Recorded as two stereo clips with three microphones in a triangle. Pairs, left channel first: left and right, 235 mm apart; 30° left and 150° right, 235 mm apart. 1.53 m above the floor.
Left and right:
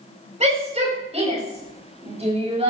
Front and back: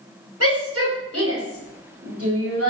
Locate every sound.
0.4 s a shout: 150° right, 10 m; by 2.7 s 155° right, 8.5 m